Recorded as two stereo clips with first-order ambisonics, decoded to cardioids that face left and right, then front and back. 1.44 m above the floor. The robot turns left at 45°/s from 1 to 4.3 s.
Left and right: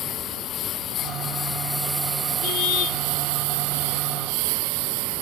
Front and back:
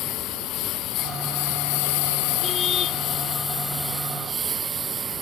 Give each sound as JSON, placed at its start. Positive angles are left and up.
{"t": 0.0, "sound": "a lawn mower", "azimuth_deg": 40}
{"t": 2.4, "sound": "a car horn", "azimuth_deg": 80}